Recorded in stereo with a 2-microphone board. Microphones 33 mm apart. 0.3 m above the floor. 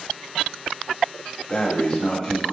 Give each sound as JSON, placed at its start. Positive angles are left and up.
{"t": 1.5, "sound": "breathing", "side_deg": 30, "distance_m": 1.1}